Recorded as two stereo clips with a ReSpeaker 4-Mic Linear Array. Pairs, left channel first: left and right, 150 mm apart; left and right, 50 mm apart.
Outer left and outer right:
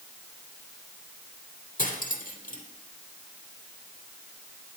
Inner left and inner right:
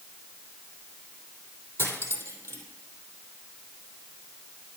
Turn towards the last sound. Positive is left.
turn(degrees=75)  # may be behind; listen again after turning